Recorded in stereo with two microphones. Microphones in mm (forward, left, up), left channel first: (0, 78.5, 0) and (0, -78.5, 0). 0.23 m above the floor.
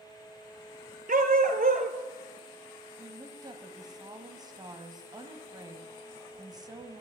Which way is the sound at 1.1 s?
60° right (ahead or behind).